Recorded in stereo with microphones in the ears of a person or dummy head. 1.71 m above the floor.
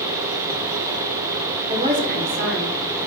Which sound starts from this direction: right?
A woman speaking, at 1.7 s.